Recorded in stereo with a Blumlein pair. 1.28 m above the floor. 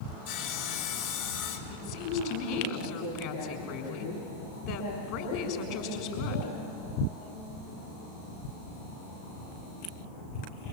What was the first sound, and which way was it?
Sawing, 55° left.